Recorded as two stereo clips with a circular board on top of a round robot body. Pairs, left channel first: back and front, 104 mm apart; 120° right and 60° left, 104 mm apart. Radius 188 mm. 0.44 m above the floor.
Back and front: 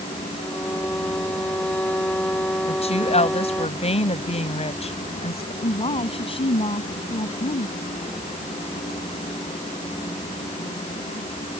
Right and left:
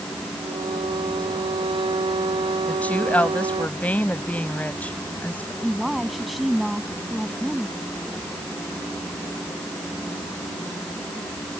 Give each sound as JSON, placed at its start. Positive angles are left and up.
{"t": 0.4, "sound": "a violin", "azimuth_deg": 100}
{"t": 2.7, "sound": "a woman speaking", "azimuth_deg": 165}
{"t": 5.6, "sound": "a woman speaking", "azimuth_deg": 150}